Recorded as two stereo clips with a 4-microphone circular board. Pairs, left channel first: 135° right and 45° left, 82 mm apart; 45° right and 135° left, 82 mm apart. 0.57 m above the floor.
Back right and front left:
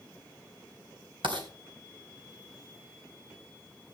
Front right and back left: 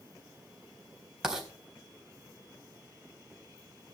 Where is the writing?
50° left, 4 m.